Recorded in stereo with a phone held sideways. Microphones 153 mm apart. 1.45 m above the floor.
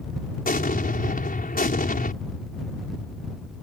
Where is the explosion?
70° left (ahead or behind).